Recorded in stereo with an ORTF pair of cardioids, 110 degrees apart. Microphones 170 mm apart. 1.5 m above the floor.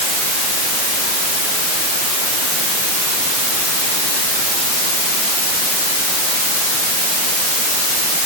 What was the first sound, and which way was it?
Only background noise.